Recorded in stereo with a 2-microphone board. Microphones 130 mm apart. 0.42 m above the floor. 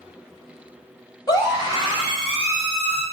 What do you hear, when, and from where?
1.3 s a scream: 30° left (ahead or behind), 2.0 m; by 3.0 s 50° left (ahead or behind), 2.5 m